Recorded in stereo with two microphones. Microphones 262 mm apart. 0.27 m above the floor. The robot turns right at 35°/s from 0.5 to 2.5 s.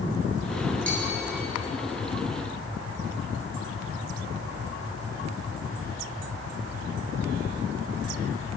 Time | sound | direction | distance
0.9 | a bell | 40° right (ahead or behind) | 2 m